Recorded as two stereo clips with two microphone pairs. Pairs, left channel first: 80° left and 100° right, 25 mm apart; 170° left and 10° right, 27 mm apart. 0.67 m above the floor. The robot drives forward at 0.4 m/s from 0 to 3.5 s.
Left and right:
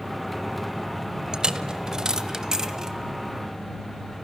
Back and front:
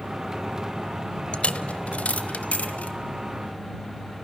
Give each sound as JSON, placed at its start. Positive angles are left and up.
{"t": 1.3, "sound": "a dropped coin", "azimuth_deg": -150, "distance_m": 0.6}